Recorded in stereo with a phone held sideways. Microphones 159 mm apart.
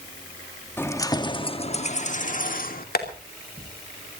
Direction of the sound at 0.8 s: 15° left (ahead or behind).